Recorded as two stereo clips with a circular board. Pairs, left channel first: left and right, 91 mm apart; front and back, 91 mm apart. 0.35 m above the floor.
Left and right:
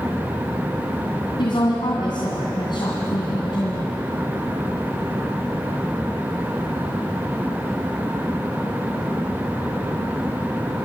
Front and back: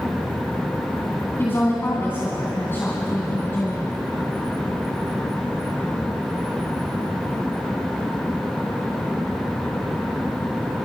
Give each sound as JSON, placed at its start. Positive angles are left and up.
{"t": 1.4, "sound": "a woman speaking", "azimuth_deg": 65, "distance_m": 2.5}